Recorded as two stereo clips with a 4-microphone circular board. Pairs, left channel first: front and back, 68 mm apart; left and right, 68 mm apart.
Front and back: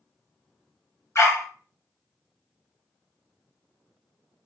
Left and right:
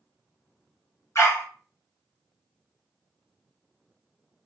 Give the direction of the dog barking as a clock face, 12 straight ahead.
11 o'clock.